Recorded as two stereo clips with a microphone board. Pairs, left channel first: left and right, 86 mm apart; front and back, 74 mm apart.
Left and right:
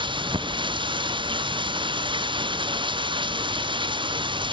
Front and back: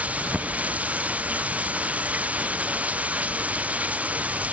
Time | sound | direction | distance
0.0 | running water | 110° right | ?